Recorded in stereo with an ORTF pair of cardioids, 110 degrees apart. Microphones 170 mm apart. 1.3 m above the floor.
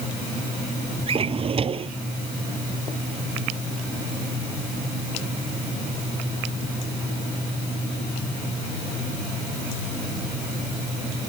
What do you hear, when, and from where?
1.1 s a drawer: 35° right